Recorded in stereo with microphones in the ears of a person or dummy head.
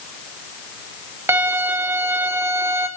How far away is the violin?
About 0.6 m.